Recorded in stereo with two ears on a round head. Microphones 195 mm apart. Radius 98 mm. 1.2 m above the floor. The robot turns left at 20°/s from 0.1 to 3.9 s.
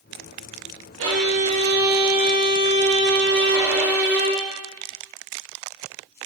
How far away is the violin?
About 1.7 m.